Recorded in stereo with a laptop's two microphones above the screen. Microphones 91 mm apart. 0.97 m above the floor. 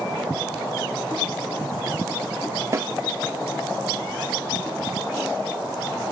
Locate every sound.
2.7 s a snare drum: 35° right (ahead or behind), 1.0 m